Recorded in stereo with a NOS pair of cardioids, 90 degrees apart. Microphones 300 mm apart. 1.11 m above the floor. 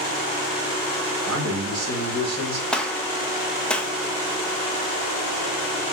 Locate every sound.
1.3 s a man speaking: 60° right, 2.5 m
2.7 s a gunshot: 5° left, 0.7 m